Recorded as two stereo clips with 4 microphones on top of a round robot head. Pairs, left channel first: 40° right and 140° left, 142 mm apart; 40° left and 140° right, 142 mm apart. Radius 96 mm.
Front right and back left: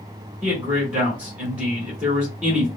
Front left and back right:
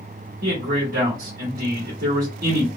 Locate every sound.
0.4 s a man speaking: 145° right, 1.7 m